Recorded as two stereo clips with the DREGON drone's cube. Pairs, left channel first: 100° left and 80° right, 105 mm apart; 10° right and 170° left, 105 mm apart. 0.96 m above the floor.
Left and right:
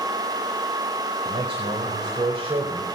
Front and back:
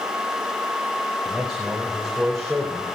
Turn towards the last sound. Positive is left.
turn(degrees=-100)